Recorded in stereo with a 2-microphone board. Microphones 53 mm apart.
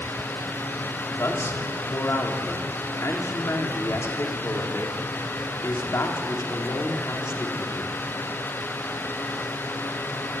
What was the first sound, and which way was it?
A man speaking, 60° left (ahead or behind).